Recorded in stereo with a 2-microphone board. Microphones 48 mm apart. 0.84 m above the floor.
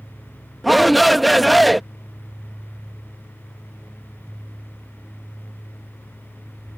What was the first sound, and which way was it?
A shout, centre (ahead or behind).